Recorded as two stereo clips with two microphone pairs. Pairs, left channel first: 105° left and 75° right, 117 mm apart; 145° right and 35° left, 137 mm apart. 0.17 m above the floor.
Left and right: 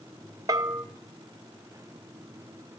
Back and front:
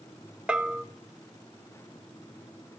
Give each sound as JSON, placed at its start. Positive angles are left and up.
{"t": 0.5, "sound": "a bell", "azimuth_deg": -40, "distance_m": 0.5}